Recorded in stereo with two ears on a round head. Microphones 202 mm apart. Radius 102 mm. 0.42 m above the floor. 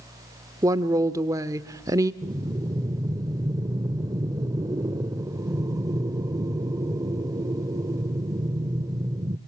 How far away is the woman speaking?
About 0.7 m.